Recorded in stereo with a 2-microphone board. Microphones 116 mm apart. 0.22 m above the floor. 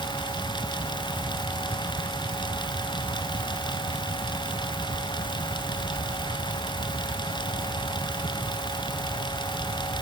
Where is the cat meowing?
I don't hear a cat meowing.